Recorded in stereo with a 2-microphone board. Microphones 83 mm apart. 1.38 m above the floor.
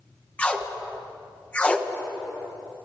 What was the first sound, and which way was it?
Tape being pulled, 15° left (ahead or behind).